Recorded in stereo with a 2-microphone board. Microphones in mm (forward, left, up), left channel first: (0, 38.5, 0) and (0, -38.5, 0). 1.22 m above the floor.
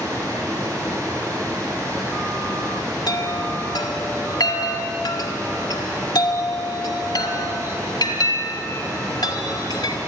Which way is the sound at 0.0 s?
45° right (ahead or behind).